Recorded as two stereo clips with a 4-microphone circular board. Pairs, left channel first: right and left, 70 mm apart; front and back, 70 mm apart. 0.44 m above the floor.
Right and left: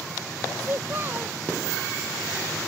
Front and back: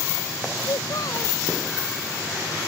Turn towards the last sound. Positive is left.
turn(degrees=30)